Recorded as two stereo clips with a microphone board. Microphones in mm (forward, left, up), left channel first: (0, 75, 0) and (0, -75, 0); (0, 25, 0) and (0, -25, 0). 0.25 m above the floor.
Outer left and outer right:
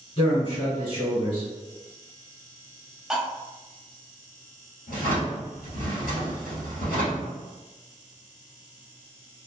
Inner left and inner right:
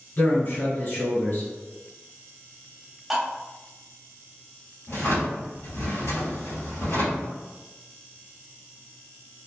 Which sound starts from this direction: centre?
Cutlery clinking, at 3.1 s.